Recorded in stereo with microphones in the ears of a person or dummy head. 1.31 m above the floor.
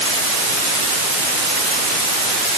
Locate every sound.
Only background noise.